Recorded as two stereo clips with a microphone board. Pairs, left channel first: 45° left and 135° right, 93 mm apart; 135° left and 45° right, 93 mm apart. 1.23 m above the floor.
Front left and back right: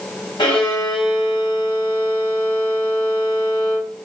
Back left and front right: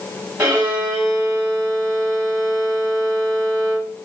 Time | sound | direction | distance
0.4 | a violin | 20° left | 1.8 m